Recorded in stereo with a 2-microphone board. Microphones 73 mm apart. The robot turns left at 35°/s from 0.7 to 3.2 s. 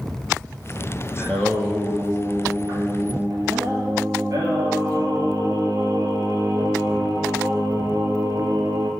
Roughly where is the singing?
Ahead.